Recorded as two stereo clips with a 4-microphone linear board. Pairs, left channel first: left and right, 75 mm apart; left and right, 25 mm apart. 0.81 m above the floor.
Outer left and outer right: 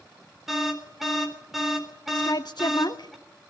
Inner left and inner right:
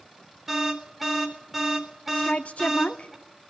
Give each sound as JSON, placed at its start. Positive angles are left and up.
{"t": 0.5, "sound": "an alarm", "side_deg": -5, "distance_m": 3.5}
{"t": 2.1, "sound": "a woman speaking", "side_deg": 60, "distance_m": 1.4}